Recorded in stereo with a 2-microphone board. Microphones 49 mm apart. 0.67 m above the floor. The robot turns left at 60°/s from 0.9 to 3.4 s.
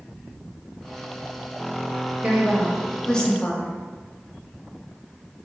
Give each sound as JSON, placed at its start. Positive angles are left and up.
{"t": 2.2, "sound": "a woman speaking", "azimuth_deg": -145, "distance_m": 0.7}